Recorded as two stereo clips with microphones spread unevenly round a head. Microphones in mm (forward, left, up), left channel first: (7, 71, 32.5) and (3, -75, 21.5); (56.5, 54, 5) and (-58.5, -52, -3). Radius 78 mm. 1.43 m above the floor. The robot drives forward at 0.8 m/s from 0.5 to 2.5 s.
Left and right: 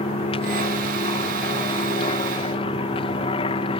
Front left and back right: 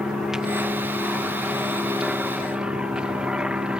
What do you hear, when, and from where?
0.0 s an aircraft: 135° left; by 3.8 s 140° left